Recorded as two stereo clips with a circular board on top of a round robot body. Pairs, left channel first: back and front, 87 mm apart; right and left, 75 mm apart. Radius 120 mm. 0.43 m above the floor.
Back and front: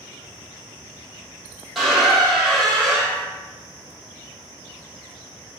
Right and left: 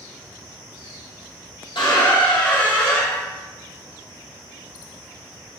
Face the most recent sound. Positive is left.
turn(degrees=-85)